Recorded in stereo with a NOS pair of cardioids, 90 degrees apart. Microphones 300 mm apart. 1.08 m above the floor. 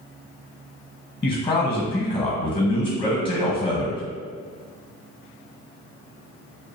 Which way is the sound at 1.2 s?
15° left.